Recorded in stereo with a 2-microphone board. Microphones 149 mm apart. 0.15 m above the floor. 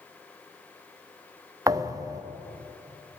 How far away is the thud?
About 1.0 m.